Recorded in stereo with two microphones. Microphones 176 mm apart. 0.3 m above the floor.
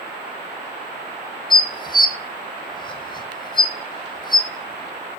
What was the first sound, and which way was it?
Dishes clattering, 25° left (ahead or behind).